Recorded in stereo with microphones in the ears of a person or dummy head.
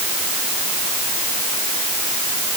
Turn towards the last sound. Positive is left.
No sound to turn to.